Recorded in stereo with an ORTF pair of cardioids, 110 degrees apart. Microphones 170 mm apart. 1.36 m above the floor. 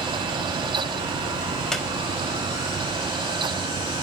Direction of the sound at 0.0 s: 25° right.